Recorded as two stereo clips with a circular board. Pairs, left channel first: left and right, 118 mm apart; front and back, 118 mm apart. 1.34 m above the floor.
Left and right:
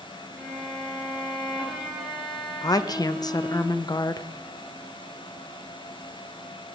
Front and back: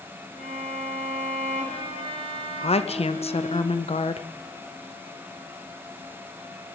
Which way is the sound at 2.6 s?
35° left.